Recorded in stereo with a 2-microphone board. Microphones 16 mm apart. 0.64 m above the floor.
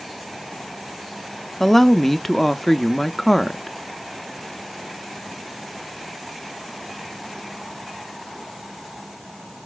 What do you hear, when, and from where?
1.6 s a woman speaking: 15° left (ahead or behind), 0.6 m